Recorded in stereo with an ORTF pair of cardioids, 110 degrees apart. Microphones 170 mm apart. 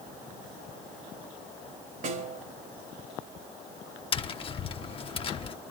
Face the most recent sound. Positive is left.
turn(degrees=35)